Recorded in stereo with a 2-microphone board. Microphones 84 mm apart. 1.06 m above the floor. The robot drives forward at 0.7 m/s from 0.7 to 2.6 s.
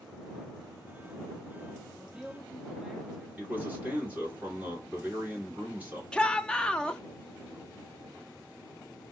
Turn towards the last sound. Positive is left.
turn(degrees=10)  # may be behind; listen again after turning